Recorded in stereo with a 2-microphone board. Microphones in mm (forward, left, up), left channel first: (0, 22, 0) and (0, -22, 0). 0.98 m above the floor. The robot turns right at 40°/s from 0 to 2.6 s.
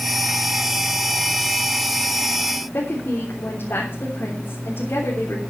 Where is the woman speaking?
65° left (ahead or behind), 3.5 m.